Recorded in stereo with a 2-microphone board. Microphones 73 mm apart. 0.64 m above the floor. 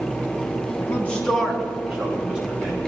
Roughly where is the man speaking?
Left.